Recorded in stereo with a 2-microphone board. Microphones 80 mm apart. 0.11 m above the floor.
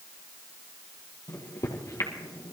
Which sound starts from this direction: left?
A microwave, at 1.3 s.